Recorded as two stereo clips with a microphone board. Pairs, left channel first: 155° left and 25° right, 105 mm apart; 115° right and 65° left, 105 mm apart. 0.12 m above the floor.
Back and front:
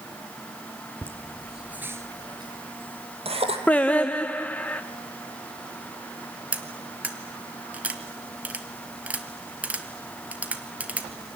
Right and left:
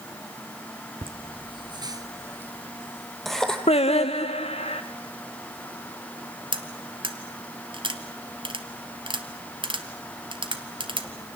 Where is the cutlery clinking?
50° left, 1.6 m.